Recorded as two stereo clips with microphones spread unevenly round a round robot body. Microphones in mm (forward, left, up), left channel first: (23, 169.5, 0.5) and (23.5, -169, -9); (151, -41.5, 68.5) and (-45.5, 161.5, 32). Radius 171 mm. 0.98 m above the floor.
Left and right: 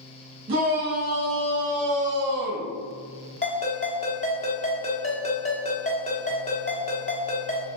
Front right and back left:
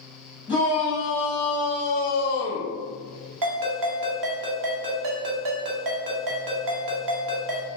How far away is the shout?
About 1.4 m.